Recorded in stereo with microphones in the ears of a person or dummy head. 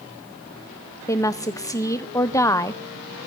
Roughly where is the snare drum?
No snare drum in this recording.